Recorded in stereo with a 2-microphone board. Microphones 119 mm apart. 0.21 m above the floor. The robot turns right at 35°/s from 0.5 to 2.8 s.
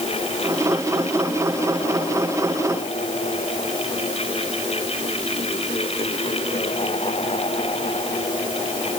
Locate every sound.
Only background noise.